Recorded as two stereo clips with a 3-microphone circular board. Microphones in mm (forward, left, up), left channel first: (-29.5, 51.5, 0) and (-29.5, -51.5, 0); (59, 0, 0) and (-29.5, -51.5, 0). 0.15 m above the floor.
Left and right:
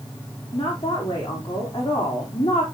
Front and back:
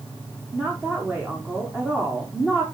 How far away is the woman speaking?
About 6.5 m.